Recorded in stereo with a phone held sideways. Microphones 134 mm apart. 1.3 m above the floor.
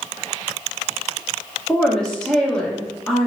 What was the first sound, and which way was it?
A woman speaking, 5° left (ahead or behind).